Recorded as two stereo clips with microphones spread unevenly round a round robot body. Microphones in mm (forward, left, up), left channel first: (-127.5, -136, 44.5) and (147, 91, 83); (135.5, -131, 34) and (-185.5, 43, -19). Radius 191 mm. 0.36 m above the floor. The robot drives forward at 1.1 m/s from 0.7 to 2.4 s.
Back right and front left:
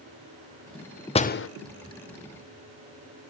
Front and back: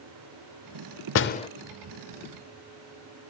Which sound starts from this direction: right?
A door slam, at 1.1 s.